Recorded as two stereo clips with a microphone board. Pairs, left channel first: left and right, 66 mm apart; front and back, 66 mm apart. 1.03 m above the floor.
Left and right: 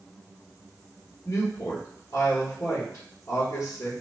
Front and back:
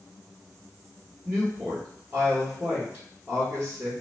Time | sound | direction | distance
1.2 | a woman speaking | 130° left | 1.2 m